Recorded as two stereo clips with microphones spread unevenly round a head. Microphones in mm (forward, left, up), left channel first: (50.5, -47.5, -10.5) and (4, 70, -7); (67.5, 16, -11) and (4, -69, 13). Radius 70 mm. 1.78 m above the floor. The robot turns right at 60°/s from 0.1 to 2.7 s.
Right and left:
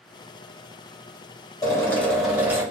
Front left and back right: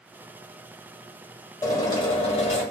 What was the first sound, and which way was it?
A drill, 15° right.